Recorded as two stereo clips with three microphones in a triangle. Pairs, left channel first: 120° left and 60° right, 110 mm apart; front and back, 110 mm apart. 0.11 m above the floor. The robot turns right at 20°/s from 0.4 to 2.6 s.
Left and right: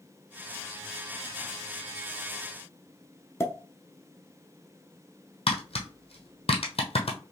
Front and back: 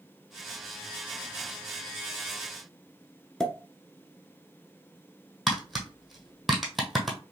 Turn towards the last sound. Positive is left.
turn(degrees=90)